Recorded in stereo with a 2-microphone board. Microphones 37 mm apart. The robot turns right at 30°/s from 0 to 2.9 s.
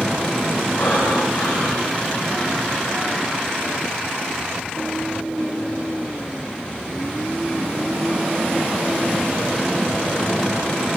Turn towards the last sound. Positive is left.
turn(degrees=-170)